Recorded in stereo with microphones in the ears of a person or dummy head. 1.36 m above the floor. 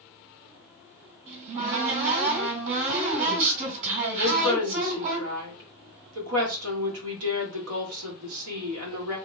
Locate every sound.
1.3 s a cupboard door: 50° right (ahead or behind), 2 m
4.2 s a woman speaking: 85° right, 1.6 m